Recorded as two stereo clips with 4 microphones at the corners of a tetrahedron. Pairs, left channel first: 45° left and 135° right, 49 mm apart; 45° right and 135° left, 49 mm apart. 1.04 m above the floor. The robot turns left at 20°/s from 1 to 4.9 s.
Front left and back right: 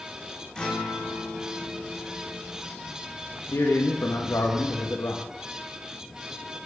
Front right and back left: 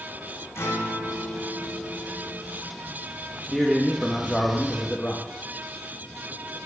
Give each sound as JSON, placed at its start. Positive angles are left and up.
{"t": 0.6, "sound": "a guitar", "azimuth_deg": -25, "distance_m": 2.0}
{"t": 3.4, "sound": "a man speaking", "azimuth_deg": 60, "distance_m": 1.1}